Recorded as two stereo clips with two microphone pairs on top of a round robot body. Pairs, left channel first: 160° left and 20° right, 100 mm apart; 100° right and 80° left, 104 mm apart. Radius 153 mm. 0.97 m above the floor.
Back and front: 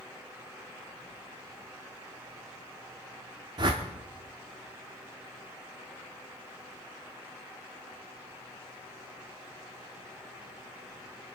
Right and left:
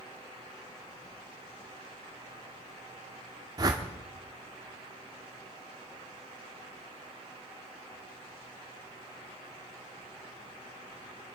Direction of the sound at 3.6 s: 25° left.